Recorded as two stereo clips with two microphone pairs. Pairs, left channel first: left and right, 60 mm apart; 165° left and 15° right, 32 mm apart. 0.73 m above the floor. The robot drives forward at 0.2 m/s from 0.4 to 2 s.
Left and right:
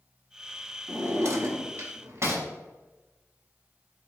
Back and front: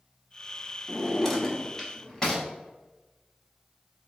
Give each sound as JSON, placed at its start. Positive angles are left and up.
{"t": 0.9, "sound": "a drawer", "azimuth_deg": -115, "distance_m": 0.7}